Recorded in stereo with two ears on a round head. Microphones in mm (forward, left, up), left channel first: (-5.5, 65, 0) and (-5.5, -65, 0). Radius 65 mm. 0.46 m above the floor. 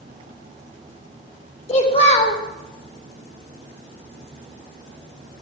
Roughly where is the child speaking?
Left.